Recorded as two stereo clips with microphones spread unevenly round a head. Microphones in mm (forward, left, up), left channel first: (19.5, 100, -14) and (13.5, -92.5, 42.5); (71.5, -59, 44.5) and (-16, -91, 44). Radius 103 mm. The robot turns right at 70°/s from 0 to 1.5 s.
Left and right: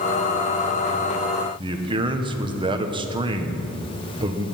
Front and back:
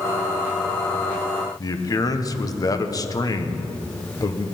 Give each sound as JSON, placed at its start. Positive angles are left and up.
{"t": 1.6, "sound": "a man speaking", "azimuth_deg": -30, "distance_m": 1.4}